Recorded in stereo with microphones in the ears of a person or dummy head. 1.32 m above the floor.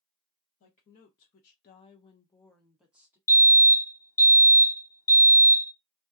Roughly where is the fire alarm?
Centre.